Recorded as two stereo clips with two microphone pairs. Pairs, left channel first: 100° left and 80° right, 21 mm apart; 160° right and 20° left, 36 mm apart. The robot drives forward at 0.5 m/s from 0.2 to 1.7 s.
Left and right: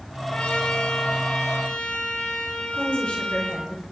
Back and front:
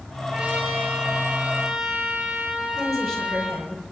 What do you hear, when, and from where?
0.3 s a trumpet: 85° left, 8.5 m; by 3.6 s 90° left, 8 m
2.7 s a woman speaking: 115° left, 5 m